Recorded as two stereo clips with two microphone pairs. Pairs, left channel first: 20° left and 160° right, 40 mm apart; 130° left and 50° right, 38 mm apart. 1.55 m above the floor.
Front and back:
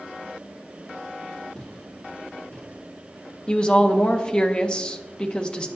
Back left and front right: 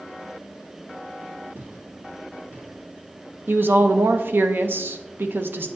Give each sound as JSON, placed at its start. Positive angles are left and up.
{"t": 1.6, "sound": "footsteps", "azimuth_deg": -40, "distance_m": 3.0}
{"t": 3.5, "sound": "a woman speaking", "azimuth_deg": -40, "distance_m": 0.7}